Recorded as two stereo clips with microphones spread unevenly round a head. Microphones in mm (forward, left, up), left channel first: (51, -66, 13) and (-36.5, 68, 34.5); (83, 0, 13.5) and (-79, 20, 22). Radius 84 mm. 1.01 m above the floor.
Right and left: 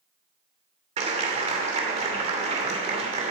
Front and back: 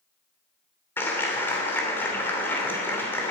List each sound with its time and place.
1.0 s a clap: 70° left, 3 m